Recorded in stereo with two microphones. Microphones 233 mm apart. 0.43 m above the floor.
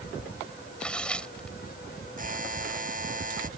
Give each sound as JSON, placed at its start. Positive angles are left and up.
{"t": 0.8, "sound": "tearing paper", "side_deg": 5}
{"t": 2.2, "sound": "a buzzer", "side_deg": -40}